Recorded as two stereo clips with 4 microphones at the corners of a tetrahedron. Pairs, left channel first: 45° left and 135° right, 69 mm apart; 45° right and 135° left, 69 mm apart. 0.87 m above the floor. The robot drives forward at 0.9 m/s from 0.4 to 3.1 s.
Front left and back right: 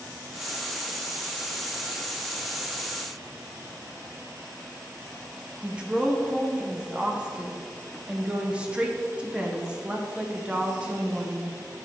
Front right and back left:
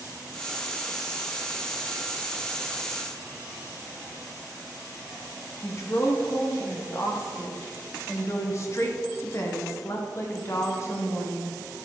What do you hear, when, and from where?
5.6 s a woman speaking: 65° right, 0.9 m